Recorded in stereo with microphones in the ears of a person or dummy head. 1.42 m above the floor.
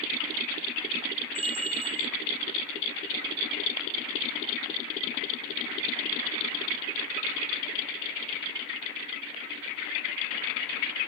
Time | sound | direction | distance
1.4 | a bell | 25° right (ahead or behind) | 0.6 m